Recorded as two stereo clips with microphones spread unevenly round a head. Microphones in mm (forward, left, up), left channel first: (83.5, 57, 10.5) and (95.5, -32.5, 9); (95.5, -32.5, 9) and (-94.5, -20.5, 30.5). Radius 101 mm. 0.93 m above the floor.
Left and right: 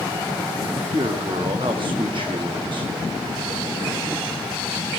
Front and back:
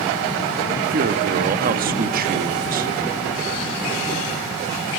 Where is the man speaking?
140° right, 1.3 m.